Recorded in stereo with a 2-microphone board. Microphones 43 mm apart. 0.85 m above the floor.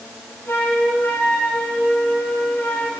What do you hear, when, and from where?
0.5 s a flute: 65° left (ahead or behind), 5 m